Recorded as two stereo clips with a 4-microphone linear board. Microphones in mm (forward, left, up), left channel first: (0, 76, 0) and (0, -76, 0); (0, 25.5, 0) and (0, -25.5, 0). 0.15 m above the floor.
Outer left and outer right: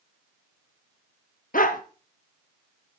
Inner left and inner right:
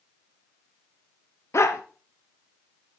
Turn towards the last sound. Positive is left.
turn(degrees=65)  # may be behind; listen again after turning